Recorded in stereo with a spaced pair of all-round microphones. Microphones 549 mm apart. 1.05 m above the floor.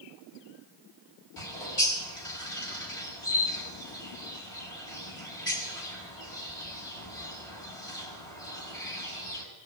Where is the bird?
65° left (ahead or behind), 5.5 m.